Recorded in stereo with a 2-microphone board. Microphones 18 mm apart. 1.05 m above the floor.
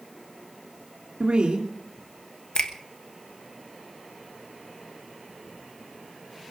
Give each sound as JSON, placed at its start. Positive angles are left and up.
{"t": 1.2, "sound": "a woman speaking", "side_deg": -75, "distance_m": 2.5}
{"t": 2.5, "sound": "a finger snap", "side_deg": 50, "distance_m": 1.1}